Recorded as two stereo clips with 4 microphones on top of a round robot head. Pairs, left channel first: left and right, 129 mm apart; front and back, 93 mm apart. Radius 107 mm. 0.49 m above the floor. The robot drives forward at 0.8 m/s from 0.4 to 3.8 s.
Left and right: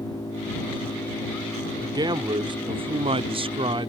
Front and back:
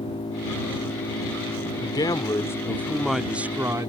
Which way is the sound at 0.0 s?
20° left.